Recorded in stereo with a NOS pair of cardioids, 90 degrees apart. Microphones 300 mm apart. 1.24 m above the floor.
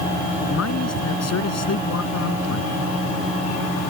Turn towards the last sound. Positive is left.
turn(degrees=55)